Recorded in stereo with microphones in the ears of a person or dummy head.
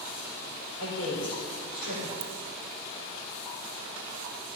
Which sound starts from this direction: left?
A woman speaking, at 0.8 s.